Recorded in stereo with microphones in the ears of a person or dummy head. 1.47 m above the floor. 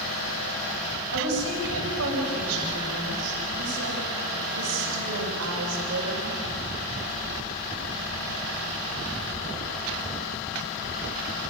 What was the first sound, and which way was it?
A woman speaking, 80° right.